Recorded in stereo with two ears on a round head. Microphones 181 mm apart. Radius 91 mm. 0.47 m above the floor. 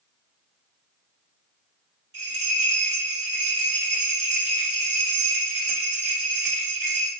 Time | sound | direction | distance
2.1 | a bell | 55° right (ahead or behind) | 2.5 m